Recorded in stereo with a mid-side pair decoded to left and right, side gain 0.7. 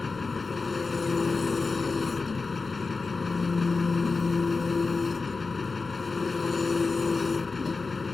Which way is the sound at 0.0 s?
20° left.